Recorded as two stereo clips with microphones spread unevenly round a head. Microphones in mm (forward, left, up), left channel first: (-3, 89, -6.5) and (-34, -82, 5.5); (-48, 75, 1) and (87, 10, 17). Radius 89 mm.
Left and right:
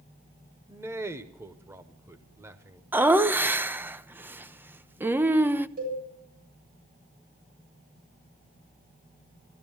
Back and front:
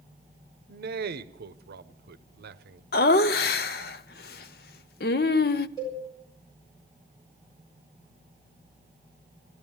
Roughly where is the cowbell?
Behind right.